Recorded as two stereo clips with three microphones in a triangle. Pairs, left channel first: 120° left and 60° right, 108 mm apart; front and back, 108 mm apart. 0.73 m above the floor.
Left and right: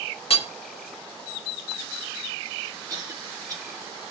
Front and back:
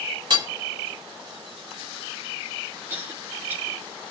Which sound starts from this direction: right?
A cough, at 2.9 s.